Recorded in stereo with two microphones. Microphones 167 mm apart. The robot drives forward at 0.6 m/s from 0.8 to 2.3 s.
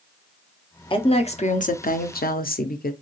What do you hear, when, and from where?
0.9 s a woman speaking: 30° left (ahead or behind), 0.9 m; by 2.9 s 60° left (ahead or behind), 0.6 m